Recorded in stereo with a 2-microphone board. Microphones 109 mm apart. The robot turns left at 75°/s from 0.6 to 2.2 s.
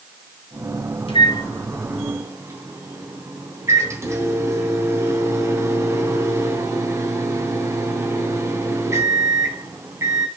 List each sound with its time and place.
1.1 s a microwave: 60° left, 2.5 m; by 10.3 s 25° right, 2.5 m